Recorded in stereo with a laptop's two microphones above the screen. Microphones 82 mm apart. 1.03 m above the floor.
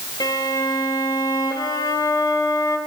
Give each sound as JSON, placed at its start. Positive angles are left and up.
{"t": 0.2, "sound": "a violin", "side_deg": 55, "distance_m": 1.5}